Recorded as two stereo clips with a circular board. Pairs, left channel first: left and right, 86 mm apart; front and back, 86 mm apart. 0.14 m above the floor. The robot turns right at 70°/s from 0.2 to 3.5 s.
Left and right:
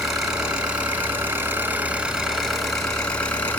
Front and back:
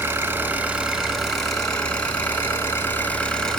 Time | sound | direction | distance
0.0 | an engine running | 170° right | 1.2 m